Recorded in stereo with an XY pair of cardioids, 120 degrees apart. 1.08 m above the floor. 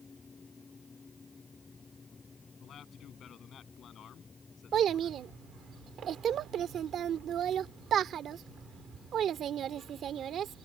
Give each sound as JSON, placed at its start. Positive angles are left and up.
{"t": 0.0, "sound": "a fan", "azimuth_deg": 25}
{"t": 2.6, "sound": "a man speaking", "azimuth_deg": 50}
{"t": 4.7, "sound": "a child speaking", "azimuth_deg": -55}